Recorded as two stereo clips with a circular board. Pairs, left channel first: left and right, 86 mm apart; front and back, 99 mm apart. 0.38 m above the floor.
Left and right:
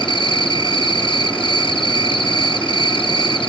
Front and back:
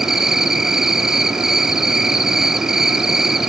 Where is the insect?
95° left, 1.1 m.